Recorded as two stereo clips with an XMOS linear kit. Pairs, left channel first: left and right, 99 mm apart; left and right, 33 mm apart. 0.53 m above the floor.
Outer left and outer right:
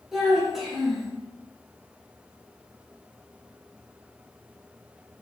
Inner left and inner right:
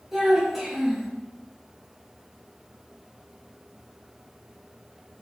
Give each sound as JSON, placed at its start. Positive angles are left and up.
{"t": 0.1, "sound": "a child speaking", "side_deg": -5, "distance_m": 1.1}